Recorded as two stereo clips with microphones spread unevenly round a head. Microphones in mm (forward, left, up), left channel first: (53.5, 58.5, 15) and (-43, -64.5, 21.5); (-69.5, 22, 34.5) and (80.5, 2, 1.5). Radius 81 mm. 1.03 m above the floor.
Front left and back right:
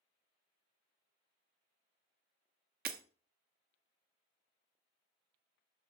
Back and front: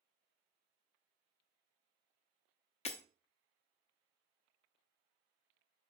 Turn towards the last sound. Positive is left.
turn(degrees=-150)